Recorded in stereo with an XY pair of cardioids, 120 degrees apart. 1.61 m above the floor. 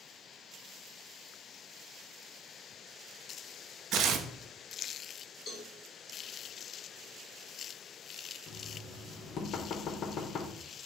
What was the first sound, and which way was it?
Tearing paper, 65° right.